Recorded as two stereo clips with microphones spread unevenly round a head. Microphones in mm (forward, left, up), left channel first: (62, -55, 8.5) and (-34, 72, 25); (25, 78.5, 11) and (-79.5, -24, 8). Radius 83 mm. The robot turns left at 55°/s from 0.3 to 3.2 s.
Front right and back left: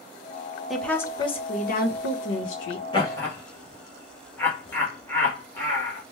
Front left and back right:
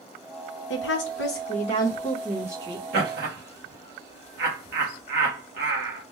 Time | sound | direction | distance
0.7 | a woman speaking | 40° left | 1.1 m
2.9 | laughter | 115° right | 1.1 m